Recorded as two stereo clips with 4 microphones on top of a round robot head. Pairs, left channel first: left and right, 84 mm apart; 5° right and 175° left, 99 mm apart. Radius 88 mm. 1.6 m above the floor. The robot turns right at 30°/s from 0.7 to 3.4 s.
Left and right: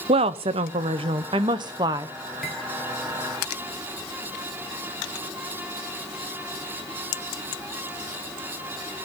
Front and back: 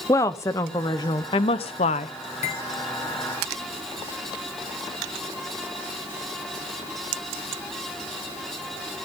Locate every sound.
0.1 s a woman speaking: 70° right, 0.9 m; by 2.1 s 25° right, 0.9 m
2.4 s cutlery clinking: straight ahead, 3 m; by 2.6 s 5° left, 3 m